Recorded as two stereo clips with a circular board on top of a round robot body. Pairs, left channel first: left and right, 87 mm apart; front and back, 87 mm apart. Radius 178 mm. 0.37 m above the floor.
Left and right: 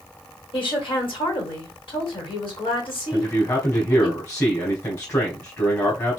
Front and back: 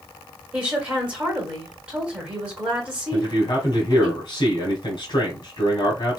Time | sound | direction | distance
0.5 | a woman speaking | 100° left | 2.5 m
3.1 | a man speaking | 35° left | 2 m